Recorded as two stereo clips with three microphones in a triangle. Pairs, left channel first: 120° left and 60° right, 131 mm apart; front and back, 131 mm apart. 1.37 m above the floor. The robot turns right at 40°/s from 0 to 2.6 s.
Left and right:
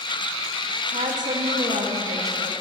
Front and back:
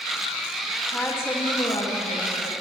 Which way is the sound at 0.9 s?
80° right.